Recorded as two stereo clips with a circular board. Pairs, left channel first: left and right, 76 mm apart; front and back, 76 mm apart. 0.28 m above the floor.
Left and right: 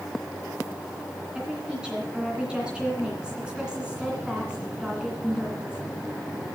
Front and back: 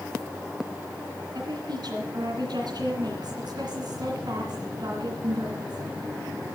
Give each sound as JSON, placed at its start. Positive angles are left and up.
{"t": 1.4, "sound": "a woman speaking", "azimuth_deg": -170, "distance_m": 2.5}